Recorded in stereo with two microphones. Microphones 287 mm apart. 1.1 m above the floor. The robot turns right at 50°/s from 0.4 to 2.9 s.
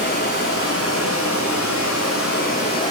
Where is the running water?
40° left, 7 m; by 2.9 s 165° left, 7 m.